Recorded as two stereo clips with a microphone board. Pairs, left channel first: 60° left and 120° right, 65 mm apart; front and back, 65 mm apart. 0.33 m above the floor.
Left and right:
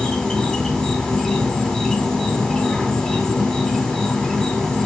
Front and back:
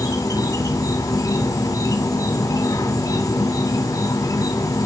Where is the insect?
15° right, 2.5 m.